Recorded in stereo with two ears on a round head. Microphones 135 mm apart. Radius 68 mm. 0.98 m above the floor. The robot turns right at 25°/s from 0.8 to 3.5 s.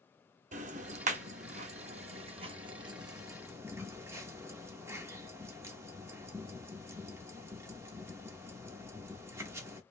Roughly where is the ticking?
Right.